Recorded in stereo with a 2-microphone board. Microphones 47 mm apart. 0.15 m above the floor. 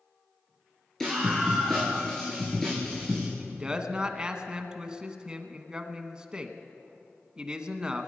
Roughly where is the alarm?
I don't hear an alarm.